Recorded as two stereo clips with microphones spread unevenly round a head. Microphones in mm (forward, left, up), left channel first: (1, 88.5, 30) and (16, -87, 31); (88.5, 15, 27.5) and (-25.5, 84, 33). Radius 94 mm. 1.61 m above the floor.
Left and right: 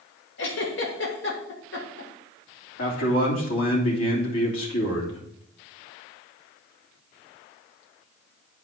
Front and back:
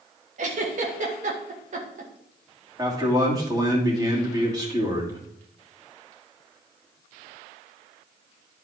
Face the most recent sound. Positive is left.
turn(degrees=85)